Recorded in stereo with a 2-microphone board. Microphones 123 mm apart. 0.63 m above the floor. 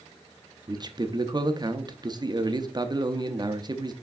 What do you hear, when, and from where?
0.7 s a man speaking: 35° right (ahead or behind), 0.6 m